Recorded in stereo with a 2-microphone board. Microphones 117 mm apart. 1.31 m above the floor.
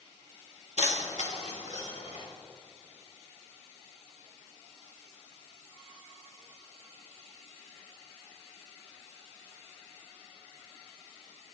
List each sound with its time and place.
0.8 s keys jangling: 70° left (ahead or behind), 1.5 m; by 2.2 s 80° left, 3.5 m